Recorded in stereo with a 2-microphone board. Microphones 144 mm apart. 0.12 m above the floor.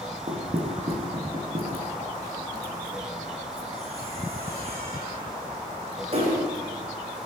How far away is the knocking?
About 7 m.